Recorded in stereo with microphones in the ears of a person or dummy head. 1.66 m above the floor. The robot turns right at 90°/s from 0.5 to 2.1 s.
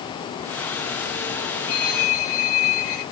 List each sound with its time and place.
1.7 s a phone ringing: 85° left, 5.5 m; by 3.0 s 125° left, 5.5 m